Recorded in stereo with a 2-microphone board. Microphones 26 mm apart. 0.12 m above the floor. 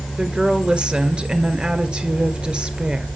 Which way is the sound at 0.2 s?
35° right (ahead or behind).